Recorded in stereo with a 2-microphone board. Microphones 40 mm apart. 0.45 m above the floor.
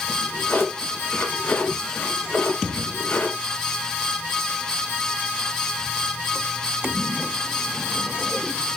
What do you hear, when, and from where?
0.1 s a drawer: 60° left (ahead or behind), 2.5 m